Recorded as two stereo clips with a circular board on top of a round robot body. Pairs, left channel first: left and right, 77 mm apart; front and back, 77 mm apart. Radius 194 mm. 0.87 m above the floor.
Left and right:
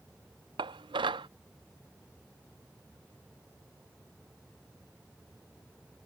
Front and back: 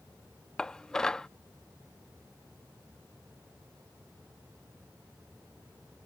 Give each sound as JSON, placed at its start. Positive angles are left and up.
{"t": 0.6, "sound": "dishes clattering", "azimuth_deg": -80}